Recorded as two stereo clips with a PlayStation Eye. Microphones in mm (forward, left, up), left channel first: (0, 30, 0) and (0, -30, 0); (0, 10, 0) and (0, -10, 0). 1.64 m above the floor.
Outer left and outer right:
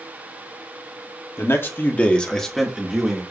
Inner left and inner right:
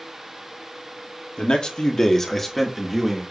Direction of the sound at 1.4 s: 50° left (ahead or behind).